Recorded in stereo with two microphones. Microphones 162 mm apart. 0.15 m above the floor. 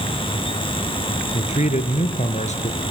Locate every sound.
1.3 s a man speaking: 45° left (ahead or behind), 2.5 m